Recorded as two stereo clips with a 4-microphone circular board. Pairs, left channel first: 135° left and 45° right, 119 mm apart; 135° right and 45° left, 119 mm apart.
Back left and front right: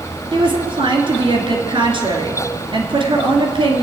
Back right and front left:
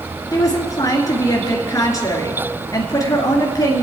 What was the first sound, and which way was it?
A woman speaking, 80° right.